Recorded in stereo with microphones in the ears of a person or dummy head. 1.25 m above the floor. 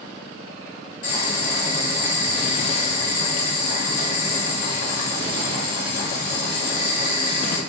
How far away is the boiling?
About 1.3 m.